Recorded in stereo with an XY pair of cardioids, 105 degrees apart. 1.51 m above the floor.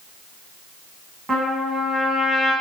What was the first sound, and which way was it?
A trumpet, 20° right.